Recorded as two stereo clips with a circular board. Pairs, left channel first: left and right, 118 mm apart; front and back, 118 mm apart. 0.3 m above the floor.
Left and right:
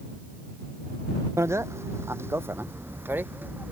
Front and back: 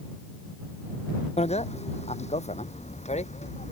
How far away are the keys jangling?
No keys jangling in this recording.